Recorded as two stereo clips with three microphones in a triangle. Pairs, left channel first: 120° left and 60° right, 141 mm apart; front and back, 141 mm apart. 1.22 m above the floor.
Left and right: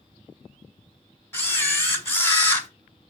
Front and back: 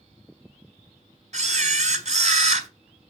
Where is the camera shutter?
170° right, 1.1 m.